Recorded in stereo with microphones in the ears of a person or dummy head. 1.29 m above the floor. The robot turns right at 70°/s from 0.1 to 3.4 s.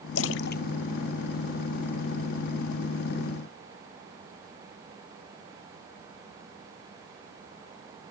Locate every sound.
0.1 s a splash: 85° left; by 1.9 s 40° right (ahead or behind)